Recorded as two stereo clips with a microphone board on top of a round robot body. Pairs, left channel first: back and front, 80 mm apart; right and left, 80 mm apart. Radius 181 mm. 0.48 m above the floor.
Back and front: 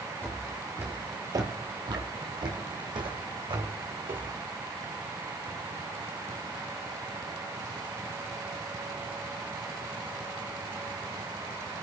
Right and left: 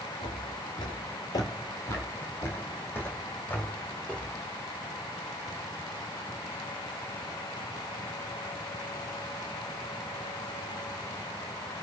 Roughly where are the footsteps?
Right.